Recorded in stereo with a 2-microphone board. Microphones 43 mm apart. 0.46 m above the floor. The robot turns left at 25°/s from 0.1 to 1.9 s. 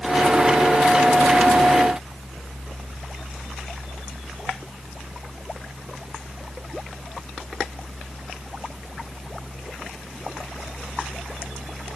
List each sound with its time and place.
Only background noise.